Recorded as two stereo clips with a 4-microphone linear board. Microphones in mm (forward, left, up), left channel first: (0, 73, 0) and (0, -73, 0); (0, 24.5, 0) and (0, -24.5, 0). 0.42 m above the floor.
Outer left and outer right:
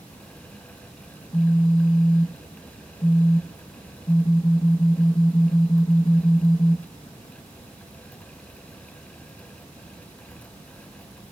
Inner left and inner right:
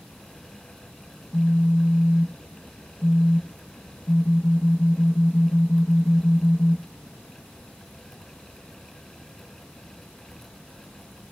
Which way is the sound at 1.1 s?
40° left (ahead or behind).